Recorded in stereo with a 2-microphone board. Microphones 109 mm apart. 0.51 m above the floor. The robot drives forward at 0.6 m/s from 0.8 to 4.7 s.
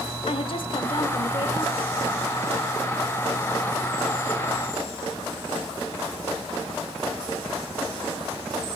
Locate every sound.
0.3 s a woman speaking: 55° left (ahead or behind), 1.8 m